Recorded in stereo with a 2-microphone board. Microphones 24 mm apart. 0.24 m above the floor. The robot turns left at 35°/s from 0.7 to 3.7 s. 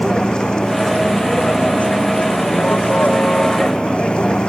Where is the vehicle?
145° left; by 4.5 s 40° left.